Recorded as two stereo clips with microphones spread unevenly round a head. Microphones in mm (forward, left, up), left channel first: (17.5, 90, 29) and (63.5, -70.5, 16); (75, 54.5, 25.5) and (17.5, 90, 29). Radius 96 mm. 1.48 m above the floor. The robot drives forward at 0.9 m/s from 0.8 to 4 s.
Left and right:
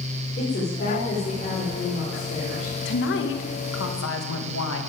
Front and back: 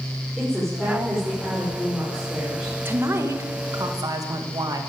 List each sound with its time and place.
0.4 s a woman speaking: 65° left, 5.5 m; by 2.8 s 80° left, 5 m
2.9 s a woman speaking: 90° left, 2 m; by 4.8 s 115° left, 2.5 m